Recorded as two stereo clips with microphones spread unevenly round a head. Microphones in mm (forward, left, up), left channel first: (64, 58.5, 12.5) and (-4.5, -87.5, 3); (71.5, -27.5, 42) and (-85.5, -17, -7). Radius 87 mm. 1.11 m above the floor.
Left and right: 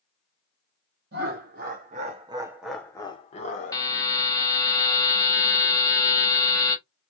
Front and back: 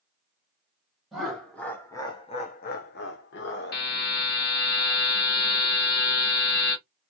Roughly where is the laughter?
Right.